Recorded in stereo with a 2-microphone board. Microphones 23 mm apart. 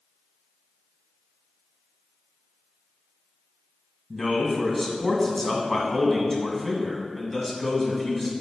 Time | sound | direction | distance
4.1 | a man speaking | 5° left (ahead or behind) | 1.6 m